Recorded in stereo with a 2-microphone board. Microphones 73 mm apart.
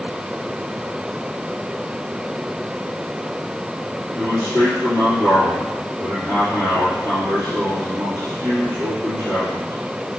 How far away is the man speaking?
About 3.5 m.